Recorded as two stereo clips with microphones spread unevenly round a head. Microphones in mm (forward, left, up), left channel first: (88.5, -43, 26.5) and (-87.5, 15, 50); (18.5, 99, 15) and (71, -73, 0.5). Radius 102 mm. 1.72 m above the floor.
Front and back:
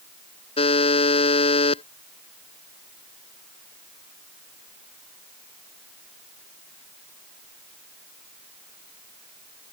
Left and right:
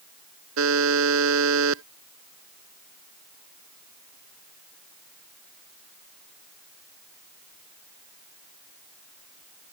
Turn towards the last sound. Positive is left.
turn(degrees=-80)